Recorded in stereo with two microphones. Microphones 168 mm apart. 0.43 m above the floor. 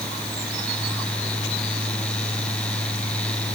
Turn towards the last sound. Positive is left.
No sound to turn to.